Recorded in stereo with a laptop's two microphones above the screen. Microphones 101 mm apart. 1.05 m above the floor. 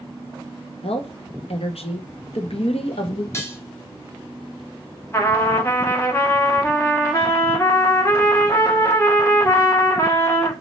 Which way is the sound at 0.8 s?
75° left (ahead or behind).